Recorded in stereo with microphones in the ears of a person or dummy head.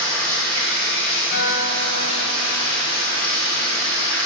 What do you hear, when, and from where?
0.0 s running water: 25° right (ahead or behind), 3 m
1.3 s a guitar: 50° left (ahead or behind), 1.2 m